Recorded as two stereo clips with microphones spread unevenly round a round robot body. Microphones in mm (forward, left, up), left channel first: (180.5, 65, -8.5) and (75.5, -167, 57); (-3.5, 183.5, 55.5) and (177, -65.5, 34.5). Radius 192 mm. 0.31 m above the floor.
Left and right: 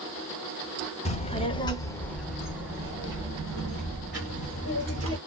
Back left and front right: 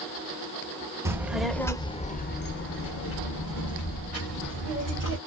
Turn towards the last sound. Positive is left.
turn(degrees=175)